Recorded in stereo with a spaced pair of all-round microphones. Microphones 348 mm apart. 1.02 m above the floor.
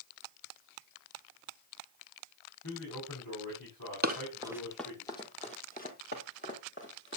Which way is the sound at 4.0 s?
25° right (ahead or behind).